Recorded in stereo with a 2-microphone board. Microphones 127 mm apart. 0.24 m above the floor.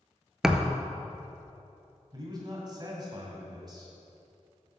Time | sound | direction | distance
0.4 | a thud | 5° right (ahead or behind) | 0.5 m
2.1 | a man speaking | 35° right (ahead or behind) | 1.9 m